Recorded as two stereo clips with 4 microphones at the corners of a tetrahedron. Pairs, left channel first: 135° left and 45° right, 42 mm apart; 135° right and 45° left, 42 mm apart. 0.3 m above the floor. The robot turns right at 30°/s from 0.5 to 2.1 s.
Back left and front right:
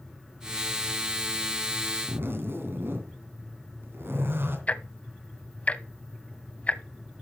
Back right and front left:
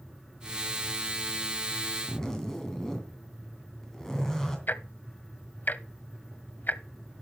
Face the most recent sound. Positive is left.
turn(degrees=-170)